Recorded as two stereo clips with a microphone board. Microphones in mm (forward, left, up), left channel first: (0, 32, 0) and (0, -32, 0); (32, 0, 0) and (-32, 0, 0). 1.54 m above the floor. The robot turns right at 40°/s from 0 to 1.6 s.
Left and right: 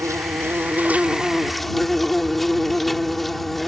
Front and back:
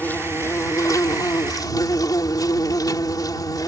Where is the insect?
60° right; by 3.7 s straight ahead.